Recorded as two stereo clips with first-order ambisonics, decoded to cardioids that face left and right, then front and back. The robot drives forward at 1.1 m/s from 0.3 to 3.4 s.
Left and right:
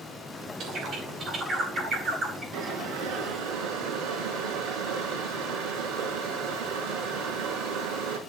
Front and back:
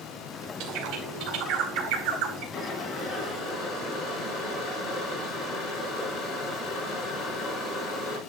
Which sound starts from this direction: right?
Boiling, at 2.5 s.